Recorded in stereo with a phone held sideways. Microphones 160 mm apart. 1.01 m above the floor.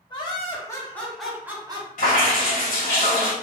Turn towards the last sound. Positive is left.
turn(degrees=60)  # may be behind; listen again after turning